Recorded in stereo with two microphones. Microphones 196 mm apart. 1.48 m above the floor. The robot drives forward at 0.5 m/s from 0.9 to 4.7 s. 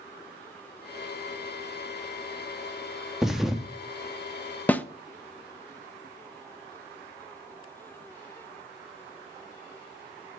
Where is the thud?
Centre (ahead or behind), 0.9 m.